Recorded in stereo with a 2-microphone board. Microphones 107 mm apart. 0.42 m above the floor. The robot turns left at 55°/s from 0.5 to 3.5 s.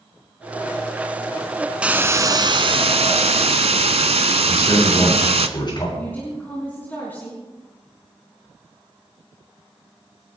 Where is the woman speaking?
20° left (ahead or behind), 4 m.